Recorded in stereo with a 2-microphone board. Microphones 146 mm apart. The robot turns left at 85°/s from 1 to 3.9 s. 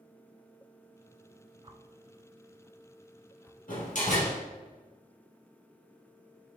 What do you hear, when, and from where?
1.6 s a whoosh: 35° right (ahead or behind), 0.7 m; by 3.6 s 20° left (ahead or behind), 0.7 m
3.7 s a door slam: 75° left (ahead or behind), 3 m; by 4.4 s 65° left (ahead or behind), 3 m